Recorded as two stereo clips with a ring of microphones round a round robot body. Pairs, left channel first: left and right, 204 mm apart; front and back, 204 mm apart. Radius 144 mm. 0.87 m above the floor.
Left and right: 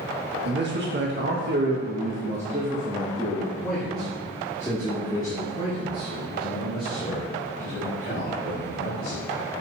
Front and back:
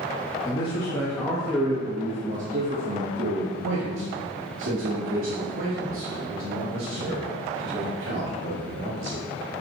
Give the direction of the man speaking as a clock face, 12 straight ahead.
2 o'clock.